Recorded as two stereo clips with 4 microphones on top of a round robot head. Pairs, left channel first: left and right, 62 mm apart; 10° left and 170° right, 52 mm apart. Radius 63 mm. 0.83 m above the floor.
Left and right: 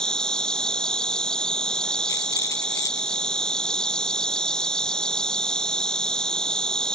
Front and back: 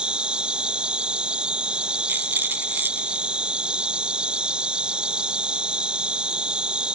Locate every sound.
0.0 s an insect: 150° left
2.1 s a rattle: 140° left